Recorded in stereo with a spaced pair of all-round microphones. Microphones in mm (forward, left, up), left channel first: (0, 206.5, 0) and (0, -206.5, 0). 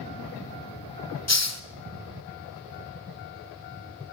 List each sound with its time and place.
1.3 s a hiss: 40° left (ahead or behind), 1.0 m